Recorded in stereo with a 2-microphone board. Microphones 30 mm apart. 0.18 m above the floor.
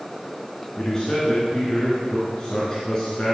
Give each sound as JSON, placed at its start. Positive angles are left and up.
{"t": 0.8, "sound": "a man speaking", "side_deg": 25, "distance_m": 2.5}